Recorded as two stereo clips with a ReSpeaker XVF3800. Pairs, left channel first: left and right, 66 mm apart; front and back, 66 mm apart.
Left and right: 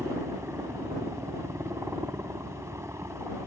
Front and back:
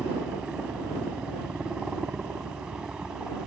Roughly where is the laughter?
I don't hear laughter.